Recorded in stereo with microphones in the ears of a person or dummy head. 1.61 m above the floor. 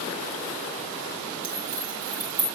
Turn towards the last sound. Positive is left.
turn(degrees=-40)  # may be behind; listen again after turning